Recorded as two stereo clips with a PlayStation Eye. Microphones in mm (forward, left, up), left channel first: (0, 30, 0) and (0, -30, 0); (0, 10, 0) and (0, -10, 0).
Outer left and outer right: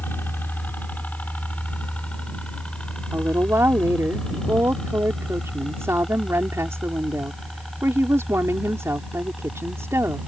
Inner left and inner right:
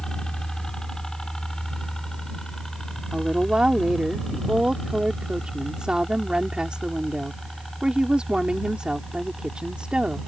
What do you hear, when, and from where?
0.0 s a helicopter: 35° left (ahead or behind); by 10.3 s centre (ahead or behind)
3.1 s a woman speaking: 50° right (ahead or behind)